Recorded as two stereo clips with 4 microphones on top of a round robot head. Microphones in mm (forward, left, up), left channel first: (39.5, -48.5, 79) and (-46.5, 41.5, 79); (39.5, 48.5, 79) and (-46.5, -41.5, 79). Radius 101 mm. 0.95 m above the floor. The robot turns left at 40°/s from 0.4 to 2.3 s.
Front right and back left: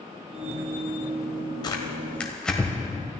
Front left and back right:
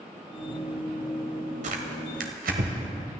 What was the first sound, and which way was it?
Tearing paper, 105° right.